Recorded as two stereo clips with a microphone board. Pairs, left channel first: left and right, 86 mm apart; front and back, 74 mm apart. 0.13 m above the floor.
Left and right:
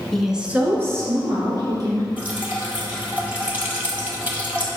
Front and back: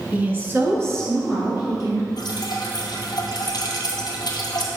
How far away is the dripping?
About 1.5 m.